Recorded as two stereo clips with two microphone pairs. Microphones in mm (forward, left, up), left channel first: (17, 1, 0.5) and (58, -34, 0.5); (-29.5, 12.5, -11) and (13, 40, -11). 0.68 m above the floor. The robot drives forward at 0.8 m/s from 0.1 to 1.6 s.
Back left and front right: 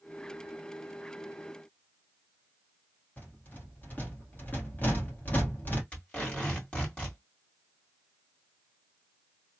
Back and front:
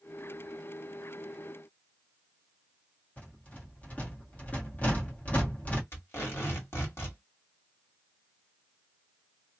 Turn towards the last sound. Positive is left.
turn(degrees=-155)